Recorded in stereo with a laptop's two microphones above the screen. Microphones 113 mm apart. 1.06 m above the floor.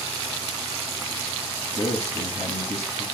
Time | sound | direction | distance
1.6 | a man speaking | 80° left | 1.4 m